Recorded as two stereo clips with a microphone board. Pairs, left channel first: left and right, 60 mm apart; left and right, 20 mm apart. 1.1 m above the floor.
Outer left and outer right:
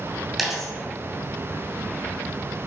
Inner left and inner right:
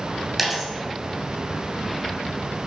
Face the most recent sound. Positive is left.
turn(degrees=-5)  # may be behind; listen again after turning